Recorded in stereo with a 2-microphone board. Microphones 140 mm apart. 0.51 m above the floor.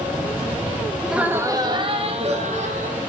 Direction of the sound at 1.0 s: Centre (ahead or behind).